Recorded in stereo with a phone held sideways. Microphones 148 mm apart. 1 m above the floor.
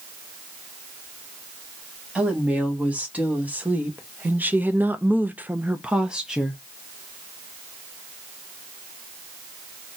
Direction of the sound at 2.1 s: 10° right (ahead or behind).